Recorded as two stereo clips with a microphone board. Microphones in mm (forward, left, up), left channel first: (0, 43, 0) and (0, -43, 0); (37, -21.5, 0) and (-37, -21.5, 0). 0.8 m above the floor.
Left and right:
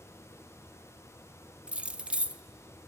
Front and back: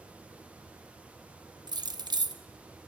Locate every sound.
1.7 s keys jangling: 165° right, 0.6 m